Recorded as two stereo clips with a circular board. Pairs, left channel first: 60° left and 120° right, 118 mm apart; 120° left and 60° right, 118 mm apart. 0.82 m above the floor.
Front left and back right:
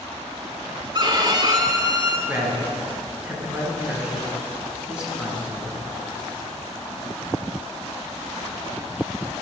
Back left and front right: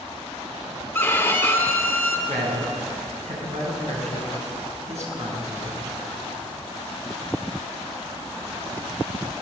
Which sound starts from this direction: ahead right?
A man speaking, at 2.3 s.